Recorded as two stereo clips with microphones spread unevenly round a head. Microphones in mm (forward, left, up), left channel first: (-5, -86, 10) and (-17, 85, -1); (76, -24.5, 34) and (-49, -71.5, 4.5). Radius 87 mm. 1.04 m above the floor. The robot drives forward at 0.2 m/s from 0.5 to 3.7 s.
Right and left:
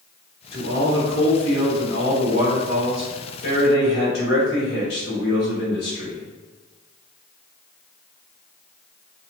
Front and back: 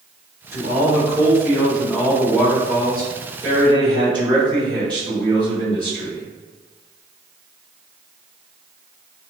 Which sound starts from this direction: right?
A man speaking, at 0.5 s.